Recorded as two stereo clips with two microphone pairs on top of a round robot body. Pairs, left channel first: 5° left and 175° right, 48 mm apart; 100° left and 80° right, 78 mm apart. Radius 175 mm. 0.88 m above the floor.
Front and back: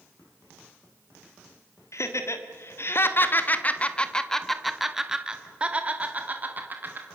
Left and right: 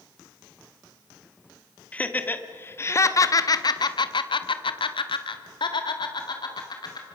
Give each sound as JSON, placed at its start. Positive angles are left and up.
{"t": 1.9, "sound": "laughter", "azimuth_deg": 30, "distance_m": 2.0}